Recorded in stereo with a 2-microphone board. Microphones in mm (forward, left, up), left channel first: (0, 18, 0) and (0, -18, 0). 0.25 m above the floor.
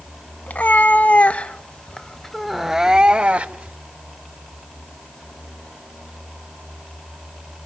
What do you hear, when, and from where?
0.5 s a cat meowing: 55° left (ahead or behind), 1.3 m; by 3.8 s 45° right (ahead or behind), 0.9 m